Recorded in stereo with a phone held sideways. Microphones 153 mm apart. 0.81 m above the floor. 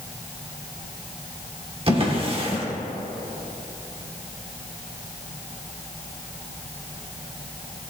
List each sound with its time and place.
1.9 s a drawer: 40° right (ahead or behind), 1.3 m